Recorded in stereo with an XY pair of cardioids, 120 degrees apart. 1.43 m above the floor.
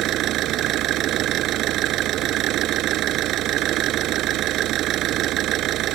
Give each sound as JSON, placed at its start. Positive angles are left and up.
{"t": 0.0, "sound": "an engine running", "azimuth_deg": -70}